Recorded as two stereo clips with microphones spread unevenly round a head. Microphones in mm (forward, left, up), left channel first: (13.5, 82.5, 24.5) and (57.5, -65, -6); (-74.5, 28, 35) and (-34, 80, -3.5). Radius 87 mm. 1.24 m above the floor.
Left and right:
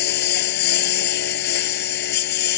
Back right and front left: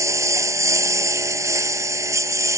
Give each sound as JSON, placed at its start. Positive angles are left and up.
{"t": 0.0, "sound": "a lawn mower", "azimuth_deg": 100}